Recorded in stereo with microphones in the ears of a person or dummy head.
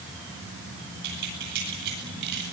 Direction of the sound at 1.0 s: 55° right (ahead or behind).